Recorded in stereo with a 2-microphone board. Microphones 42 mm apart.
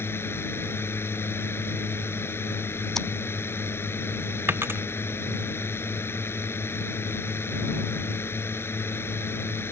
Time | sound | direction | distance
0.0 | a drone | 70° left (ahead or behind) | ?
3.0 | scissors | 10° left (ahead or behind) | ?
4.5 | a dropped coin | 65° right (ahead or behind) | ?